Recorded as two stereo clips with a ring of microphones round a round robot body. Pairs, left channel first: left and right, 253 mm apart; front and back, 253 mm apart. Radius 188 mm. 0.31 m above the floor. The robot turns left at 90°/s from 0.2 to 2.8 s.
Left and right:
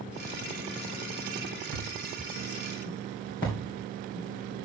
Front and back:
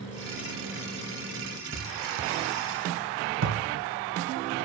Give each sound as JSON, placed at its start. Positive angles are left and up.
{"t": 1.7, "sound": "a thud", "azimuth_deg": -95, "distance_m": 4.0}